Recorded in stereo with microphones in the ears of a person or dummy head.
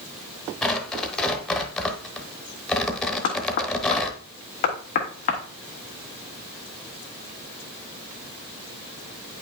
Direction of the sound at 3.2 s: 40° left (ahead or behind).